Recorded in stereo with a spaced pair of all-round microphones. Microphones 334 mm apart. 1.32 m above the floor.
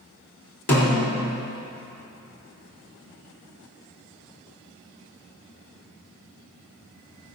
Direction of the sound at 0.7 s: 45° left (ahead or behind).